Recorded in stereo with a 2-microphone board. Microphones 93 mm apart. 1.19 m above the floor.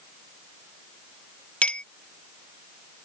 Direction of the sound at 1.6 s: 15° left (ahead or behind).